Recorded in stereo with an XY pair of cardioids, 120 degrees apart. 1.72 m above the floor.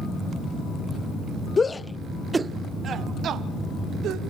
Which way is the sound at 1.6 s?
25° left.